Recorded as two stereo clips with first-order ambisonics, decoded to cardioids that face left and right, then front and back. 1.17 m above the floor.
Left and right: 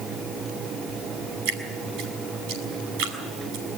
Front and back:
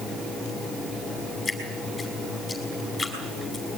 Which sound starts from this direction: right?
Dripping, at 1.4 s.